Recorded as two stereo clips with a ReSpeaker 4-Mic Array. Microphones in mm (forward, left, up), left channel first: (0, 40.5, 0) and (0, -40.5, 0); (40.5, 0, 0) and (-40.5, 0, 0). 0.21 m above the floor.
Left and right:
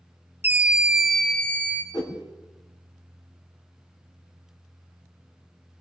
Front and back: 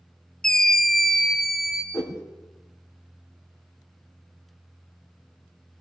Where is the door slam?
No door slam in this recording.